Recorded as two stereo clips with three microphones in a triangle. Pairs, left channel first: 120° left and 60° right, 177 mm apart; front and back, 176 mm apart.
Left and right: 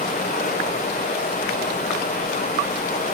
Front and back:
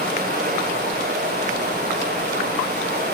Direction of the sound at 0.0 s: 145° left.